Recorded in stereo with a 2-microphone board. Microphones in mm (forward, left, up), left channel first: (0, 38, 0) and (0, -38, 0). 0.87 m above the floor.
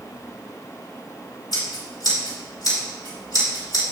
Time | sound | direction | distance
1.5 | scissors | 75° left (ahead or behind) | 3.5 m